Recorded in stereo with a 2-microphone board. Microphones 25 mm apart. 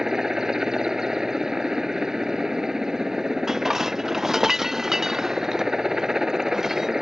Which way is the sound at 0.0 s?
20° right (ahead or behind).